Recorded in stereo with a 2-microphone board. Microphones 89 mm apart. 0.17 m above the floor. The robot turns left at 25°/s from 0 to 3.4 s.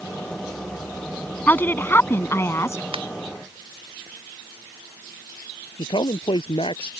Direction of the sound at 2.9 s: 85° right.